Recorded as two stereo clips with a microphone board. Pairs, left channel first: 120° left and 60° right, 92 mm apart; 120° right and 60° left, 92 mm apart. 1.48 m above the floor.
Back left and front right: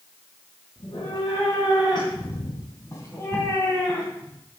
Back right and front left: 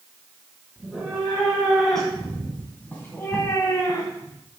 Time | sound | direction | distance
0.8 | a cat meowing | 140° left | 3.5 m